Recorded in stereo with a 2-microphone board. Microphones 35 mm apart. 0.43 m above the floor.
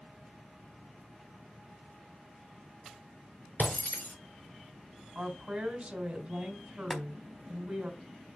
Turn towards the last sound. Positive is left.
turn(degrees=5)  # may be behind; listen again after turning